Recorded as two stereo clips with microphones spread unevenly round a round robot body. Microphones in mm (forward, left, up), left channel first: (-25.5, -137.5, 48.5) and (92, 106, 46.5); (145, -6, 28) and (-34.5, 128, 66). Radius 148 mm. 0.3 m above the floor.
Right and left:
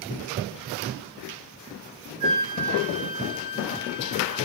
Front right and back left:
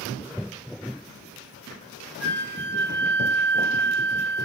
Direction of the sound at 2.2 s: 120° left.